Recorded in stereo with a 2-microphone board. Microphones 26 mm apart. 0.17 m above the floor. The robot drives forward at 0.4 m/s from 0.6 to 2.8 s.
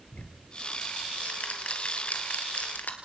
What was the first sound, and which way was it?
Ticking, 55° left (ahead or behind).